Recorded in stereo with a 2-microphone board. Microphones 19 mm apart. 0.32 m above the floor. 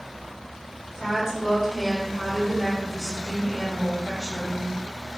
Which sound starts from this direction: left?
A woman speaking, at 0.9 s.